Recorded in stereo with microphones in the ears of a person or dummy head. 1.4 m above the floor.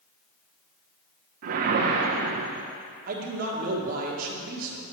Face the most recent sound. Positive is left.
turn(degrees=-45)  # may be behind; listen again after turning